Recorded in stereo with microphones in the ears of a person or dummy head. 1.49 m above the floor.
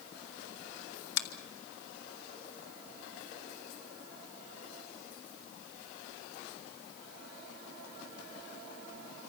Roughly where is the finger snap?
Left.